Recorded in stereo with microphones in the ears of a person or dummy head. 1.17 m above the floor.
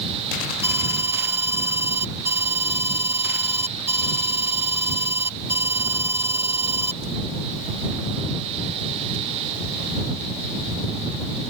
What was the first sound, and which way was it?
An alarm, 15° right (ahead or behind).